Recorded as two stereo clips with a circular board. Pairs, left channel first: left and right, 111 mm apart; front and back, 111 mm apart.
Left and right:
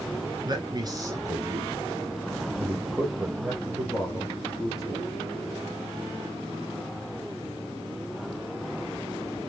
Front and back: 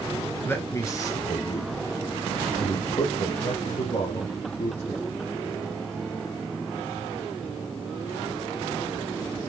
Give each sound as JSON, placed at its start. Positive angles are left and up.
{"t": 0.5, "sound": "a man speaking", "azimuth_deg": -65, "distance_m": 1.4}